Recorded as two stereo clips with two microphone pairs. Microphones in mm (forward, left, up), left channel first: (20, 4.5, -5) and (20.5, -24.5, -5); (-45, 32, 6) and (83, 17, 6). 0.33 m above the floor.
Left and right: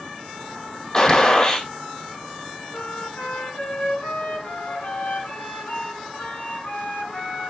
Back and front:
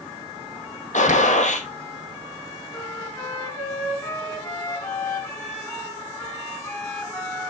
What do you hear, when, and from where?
0.9 s a gunshot: 155° left, 2.5 m
2.7 s a flute: 100° left, 4 m